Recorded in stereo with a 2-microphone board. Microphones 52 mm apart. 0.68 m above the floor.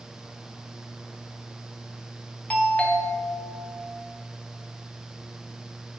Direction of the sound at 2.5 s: 25° left (ahead or behind).